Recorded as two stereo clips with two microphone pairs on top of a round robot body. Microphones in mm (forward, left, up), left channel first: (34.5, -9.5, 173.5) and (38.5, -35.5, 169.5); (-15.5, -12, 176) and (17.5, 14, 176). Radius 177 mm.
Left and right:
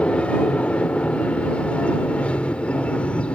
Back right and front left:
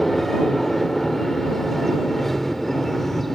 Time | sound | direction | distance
0.0 | an aircraft | 135° left | ?